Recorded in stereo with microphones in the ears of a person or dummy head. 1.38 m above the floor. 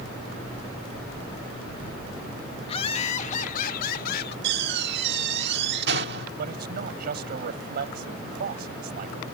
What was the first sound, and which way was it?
Laughter, 30° left (ahead or behind).